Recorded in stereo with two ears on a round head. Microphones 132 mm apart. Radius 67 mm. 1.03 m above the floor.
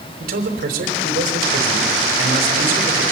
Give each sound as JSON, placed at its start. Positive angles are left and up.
{"t": 0.2, "sound": "a man speaking", "side_deg": -70, "distance_m": 4.5}